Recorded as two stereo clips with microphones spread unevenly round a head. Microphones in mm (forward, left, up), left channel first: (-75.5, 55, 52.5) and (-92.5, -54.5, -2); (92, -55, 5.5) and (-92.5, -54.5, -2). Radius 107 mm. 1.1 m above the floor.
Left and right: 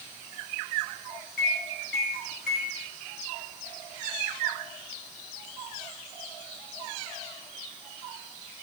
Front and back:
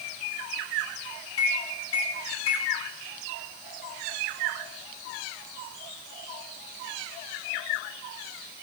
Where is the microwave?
35° left, 1.4 m.